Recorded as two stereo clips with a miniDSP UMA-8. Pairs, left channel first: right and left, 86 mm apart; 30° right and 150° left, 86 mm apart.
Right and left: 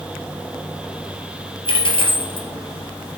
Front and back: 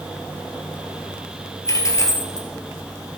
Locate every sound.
1.6 s a dropped coin: 85° right, 1.5 m